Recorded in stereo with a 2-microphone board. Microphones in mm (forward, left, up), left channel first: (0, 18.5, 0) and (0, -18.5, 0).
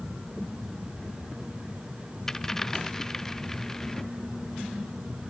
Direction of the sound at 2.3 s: 15° left (ahead or behind).